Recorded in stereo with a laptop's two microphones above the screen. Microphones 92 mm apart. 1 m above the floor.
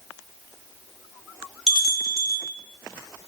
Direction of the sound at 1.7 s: 5° right (ahead or behind).